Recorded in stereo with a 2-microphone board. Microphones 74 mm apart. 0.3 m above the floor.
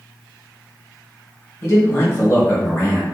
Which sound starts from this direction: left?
A man speaking, at 1.6 s.